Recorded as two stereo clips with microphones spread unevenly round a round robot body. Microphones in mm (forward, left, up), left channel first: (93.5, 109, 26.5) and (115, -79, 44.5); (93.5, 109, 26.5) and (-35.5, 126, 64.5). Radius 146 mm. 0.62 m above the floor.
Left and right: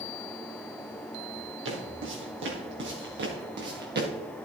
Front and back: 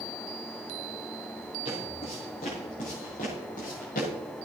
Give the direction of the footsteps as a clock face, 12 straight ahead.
3 o'clock.